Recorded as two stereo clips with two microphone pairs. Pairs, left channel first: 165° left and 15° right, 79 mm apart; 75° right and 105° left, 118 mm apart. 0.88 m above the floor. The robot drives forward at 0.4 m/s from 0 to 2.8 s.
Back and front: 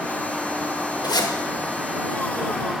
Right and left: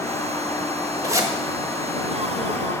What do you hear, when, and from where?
1.0 s a zipper: 160° left, 1.0 m